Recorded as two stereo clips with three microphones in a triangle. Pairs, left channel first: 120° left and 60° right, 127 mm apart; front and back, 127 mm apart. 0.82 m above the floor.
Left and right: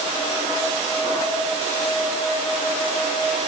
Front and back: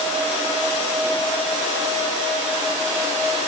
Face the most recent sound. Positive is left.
No sound to turn to.